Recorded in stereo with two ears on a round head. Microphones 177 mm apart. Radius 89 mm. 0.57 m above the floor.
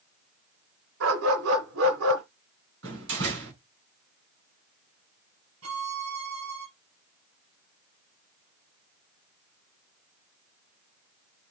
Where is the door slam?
70° right (ahead or behind), 4.5 m.